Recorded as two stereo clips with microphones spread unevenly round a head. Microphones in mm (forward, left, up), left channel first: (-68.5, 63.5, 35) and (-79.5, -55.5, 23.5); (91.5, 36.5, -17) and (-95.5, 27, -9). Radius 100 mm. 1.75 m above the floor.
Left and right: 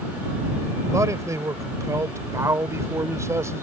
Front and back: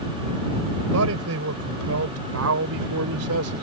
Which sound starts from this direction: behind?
A man speaking, at 0.9 s.